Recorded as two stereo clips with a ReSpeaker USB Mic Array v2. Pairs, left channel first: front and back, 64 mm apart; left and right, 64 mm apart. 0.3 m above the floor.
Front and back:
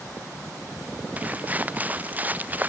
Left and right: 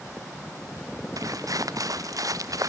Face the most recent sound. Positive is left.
turn(degrees=-115)